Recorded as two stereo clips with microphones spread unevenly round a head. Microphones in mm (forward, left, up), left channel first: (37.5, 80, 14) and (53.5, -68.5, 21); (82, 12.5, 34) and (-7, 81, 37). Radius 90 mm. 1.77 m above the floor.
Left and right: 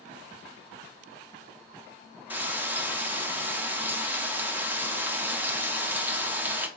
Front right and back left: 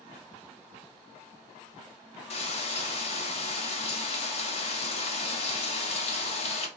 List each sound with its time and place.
2.3 s frying: 5° right, 0.8 m